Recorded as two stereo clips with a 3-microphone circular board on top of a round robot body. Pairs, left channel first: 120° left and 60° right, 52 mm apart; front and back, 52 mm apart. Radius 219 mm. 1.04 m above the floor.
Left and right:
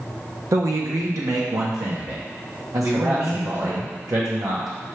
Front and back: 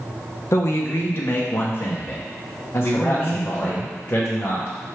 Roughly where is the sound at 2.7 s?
Ahead right.